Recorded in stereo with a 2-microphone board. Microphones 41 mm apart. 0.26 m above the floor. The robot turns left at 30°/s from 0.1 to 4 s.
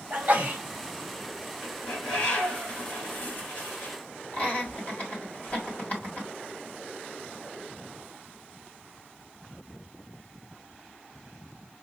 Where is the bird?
175° left, 2.5 m; by 4.0 s 105° left, 2.5 m.